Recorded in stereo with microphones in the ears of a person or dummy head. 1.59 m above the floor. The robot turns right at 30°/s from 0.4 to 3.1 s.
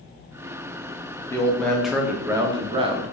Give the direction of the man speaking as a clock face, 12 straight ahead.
7 o'clock.